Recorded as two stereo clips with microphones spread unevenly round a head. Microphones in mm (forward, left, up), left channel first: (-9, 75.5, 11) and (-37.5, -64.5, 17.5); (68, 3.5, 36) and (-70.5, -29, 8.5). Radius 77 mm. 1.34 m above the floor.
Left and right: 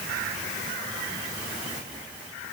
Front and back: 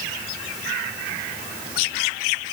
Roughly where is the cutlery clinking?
No cutlery clinking in this recording.